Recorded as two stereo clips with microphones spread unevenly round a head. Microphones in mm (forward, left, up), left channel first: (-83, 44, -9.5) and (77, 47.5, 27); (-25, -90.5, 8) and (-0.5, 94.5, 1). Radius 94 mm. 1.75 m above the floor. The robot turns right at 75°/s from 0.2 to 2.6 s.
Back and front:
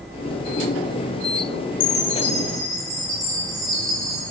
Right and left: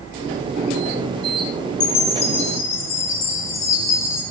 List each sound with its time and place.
1.8 s a chime: 130° right, 6.5 m; by 4.2 s 70° right, 6.5 m